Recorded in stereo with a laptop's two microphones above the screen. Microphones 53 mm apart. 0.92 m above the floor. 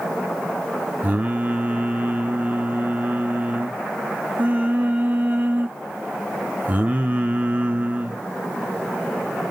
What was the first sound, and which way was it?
Singing, 30° right (ahead or behind).